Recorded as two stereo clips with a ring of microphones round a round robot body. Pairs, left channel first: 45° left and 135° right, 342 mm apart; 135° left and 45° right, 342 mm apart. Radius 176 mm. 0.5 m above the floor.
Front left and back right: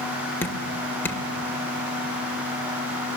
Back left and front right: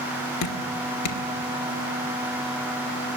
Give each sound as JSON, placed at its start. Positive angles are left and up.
{"t": 0.4, "sound": "dripping", "azimuth_deg": 130, "distance_m": 2.0}